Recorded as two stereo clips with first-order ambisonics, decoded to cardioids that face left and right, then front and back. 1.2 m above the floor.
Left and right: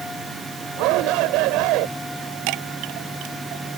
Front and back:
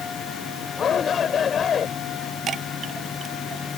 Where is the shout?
65° right.